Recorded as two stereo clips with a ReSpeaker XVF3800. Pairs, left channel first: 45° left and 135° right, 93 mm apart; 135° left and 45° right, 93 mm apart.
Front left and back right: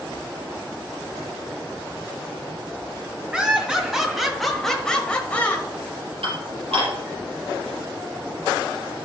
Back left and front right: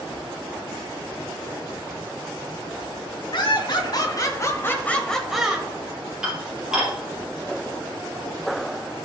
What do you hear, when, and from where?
3.3 s laughter: 145° left, 2 m; by 5.7 s 10° left, 1.3 m
6.2 s dishes clattering: 130° right, 4 m